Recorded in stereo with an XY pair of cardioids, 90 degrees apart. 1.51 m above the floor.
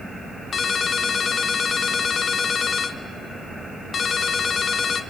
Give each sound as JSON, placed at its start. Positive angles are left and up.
{"t": 0.5, "sound": "a ringtone", "azimuth_deg": 55, "distance_m": 1.3}